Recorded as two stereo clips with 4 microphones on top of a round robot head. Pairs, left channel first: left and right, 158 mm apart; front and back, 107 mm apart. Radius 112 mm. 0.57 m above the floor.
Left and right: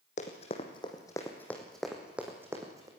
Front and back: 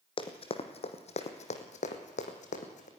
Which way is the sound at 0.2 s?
35° left.